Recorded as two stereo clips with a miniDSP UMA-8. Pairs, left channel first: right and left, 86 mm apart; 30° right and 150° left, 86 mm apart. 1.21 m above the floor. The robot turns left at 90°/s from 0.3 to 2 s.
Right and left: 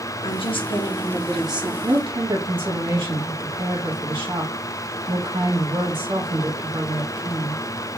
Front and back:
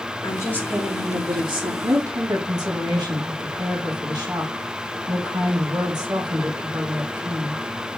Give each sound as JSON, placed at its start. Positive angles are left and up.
{"t": 0.2, "sound": "a woman speaking", "azimuth_deg": -80, "distance_m": 2.0}
{"t": 1.8, "sound": "a woman speaking", "azimuth_deg": 125, "distance_m": 2.5}